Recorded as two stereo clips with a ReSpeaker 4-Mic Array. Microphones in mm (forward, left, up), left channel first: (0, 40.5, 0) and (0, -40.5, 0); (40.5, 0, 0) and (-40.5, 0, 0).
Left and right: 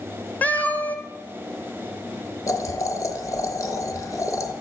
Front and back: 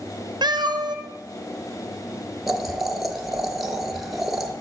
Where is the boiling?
90° left, 0.7 m.